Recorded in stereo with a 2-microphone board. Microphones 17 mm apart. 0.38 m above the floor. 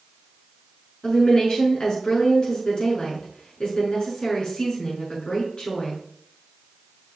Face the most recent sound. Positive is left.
turn(degrees=55)  # may be behind; listen again after turning